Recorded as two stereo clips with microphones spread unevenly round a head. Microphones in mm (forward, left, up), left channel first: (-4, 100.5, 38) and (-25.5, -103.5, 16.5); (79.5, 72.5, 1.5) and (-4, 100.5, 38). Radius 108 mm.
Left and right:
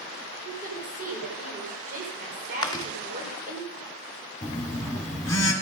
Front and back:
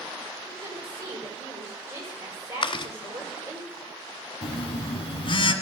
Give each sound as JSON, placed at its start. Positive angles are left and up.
{"t": 0.5, "sound": "a woman speaking", "azimuth_deg": -150, "distance_m": 5.0}
{"t": 2.6, "sound": "chewing", "azimuth_deg": 15, "distance_m": 1.6}
{"t": 4.4, "sound": "a phone buzzing", "azimuth_deg": 10, "distance_m": 1.7}